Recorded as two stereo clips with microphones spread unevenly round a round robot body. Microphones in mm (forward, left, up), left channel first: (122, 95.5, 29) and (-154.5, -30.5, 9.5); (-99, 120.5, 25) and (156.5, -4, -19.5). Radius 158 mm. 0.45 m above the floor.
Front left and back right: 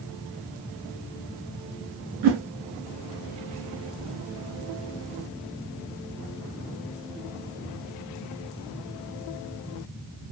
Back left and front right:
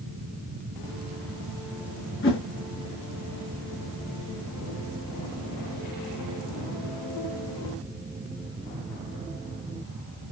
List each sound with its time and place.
2.2 s a whoosh: 160° right, 1.0 m